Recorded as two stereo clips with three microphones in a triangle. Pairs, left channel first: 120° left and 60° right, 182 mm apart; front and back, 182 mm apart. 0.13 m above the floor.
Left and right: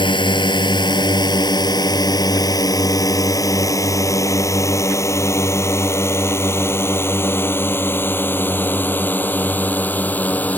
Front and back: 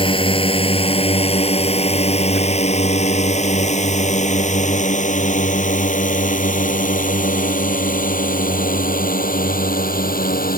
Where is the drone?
60° left; by 10.6 s 40° left.